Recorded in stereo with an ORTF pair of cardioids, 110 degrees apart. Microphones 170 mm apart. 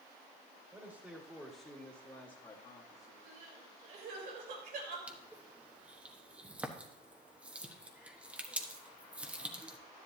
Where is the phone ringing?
No phone ringing in this recording.